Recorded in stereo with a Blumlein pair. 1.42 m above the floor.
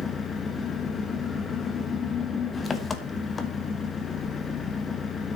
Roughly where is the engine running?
Ahead.